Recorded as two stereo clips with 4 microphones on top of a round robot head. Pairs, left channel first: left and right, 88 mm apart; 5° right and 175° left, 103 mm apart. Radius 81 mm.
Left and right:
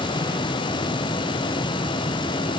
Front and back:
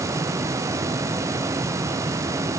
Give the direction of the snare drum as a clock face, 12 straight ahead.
No snare drum in this recording.